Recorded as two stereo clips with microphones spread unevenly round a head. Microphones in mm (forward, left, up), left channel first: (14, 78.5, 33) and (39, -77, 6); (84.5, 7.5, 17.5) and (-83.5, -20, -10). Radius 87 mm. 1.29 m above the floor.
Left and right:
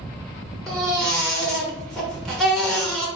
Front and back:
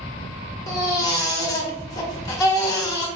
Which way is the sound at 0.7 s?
30° left.